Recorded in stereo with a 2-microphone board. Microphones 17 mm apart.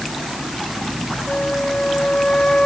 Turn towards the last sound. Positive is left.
turn(degrees=70)  # may be behind; listen again after turning